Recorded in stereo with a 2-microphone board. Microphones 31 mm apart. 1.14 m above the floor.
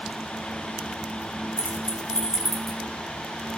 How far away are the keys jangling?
About 1.7 m.